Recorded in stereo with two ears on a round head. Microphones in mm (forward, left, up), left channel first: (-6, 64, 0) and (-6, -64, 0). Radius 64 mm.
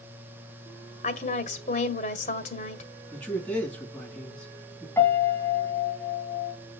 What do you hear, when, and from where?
1.0 s a woman speaking: 55° left (ahead or behind), 1.8 m
3.1 s a man speaking: 5° left (ahead or behind), 5 m
5.0 s a piano: 15° left (ahead or behind), 2.5 m